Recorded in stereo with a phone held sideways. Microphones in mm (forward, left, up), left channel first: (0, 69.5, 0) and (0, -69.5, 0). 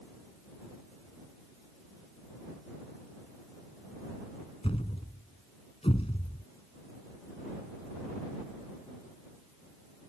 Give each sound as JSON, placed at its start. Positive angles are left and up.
{"t": 4.6, "sound": "a thud", "side_deg": 40}